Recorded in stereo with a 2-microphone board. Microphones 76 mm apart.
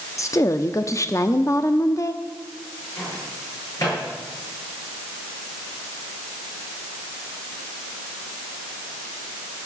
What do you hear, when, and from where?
0.2 s a woman speaking: 45° left (ahead or behind), 0.7 m
3.0 s a microwave: 45° left (ahead or behind), 7.5 m